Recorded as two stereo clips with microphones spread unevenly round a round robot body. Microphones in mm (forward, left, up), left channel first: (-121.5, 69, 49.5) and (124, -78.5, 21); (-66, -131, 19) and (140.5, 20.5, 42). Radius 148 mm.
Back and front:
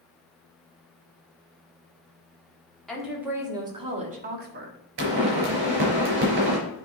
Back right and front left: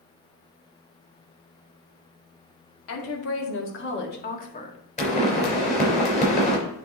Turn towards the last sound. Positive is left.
turn(degrees=-80)